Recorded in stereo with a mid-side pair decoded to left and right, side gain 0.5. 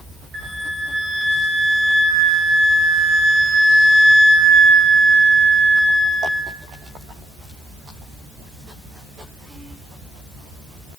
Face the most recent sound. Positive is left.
turn(degrees=-65)